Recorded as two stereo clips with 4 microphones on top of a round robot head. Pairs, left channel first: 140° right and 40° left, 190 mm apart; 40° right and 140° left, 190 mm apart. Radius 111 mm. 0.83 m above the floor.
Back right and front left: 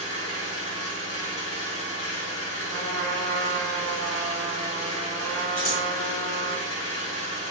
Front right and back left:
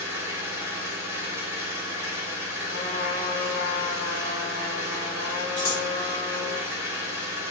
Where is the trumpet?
65° right, 1.6 m.